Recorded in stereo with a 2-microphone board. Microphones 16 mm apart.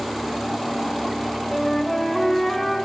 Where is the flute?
20° left (ahead or behind), 0.9 m.